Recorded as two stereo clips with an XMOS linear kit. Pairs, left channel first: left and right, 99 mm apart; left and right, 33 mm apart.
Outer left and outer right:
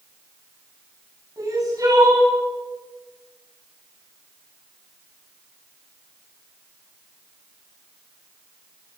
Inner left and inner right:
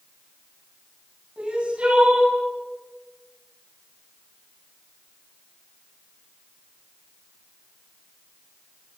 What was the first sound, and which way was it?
Crying, 35° right (ahead or behind).